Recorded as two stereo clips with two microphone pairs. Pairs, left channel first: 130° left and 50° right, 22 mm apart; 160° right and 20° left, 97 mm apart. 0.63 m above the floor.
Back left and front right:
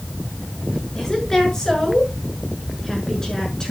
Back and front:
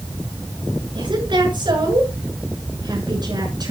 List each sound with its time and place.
0.9 s a woman speaking: 65° left, 7.5 m; by 3.7 s 70° left, 6.5 m